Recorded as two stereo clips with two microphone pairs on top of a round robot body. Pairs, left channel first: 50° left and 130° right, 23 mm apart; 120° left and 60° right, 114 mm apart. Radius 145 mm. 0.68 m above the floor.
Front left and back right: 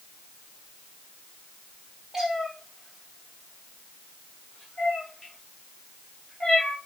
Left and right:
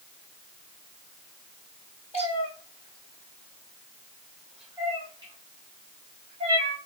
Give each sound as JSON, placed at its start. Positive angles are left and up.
{"t": 2.1, "sound": "a cat meowing", "azimuth_deg": 160, "distance_m": 1.4}